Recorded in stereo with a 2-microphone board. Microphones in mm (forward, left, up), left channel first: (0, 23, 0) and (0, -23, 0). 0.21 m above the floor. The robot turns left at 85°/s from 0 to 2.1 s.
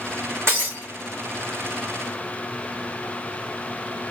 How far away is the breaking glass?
About 3 m.